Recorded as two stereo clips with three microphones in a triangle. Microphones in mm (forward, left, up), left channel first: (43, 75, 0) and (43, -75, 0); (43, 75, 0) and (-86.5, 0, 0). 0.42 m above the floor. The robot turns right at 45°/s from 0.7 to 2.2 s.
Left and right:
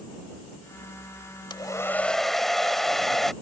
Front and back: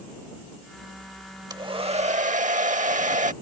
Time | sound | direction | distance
1.5 | a hair dryer | 145° left | ?